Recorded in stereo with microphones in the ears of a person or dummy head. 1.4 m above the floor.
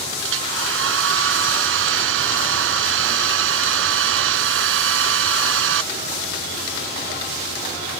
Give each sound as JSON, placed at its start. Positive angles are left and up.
{"t": 0.2, "sound": "a hair dryer", "side_deg": -75}